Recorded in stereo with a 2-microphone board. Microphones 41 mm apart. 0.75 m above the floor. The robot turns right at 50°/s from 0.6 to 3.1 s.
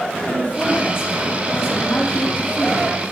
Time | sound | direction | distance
0.3 | a woman speaking | 40° left | 6 m